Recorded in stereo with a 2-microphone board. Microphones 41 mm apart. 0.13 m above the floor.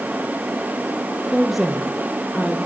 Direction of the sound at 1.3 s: 10° right (ahead or behind).